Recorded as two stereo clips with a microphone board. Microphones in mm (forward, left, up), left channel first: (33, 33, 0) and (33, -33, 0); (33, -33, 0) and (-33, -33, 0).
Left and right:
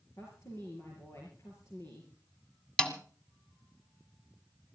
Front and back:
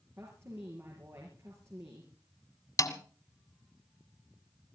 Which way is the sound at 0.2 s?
130° left.